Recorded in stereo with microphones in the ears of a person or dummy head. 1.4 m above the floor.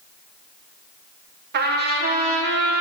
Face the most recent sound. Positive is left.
turn(degrees=-55)  # may be behind; listen again after turning